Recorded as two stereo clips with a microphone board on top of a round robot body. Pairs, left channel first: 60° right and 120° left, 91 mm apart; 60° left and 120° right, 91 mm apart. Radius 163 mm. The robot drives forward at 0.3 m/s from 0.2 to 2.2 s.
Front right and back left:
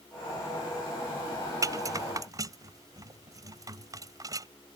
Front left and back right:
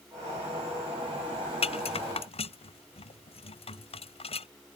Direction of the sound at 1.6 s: 65° left.